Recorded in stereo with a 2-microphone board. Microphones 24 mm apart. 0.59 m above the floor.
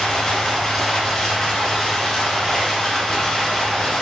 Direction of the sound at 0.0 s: 5° left (ahead or behind).